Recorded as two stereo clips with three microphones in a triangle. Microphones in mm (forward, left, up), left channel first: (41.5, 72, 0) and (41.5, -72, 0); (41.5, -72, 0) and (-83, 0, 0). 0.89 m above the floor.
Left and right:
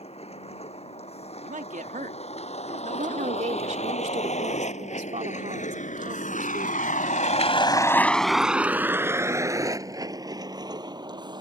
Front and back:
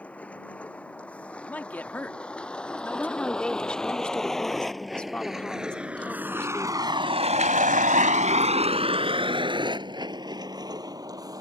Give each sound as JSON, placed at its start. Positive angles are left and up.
{"t": 0.0, "sound": "a vehicle", "azimuth_deg": 50}
{"t": 1.4, "sound": "a man speaking", "azimuth_deg": -110}
{"t": 3.0, "sound": "a woman speaking", "azimuth_deg": -115}